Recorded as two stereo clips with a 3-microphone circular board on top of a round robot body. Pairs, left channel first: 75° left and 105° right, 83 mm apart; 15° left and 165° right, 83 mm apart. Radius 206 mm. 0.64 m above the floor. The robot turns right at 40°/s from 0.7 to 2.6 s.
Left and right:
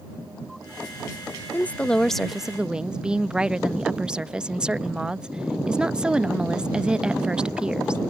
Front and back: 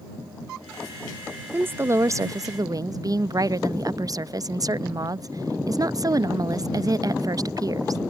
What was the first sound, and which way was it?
A woman speaking, 135° left.